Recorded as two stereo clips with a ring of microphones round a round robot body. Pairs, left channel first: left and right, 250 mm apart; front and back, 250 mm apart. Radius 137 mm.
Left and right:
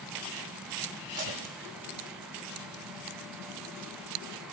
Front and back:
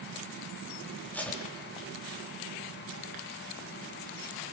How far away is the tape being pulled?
About 6 m.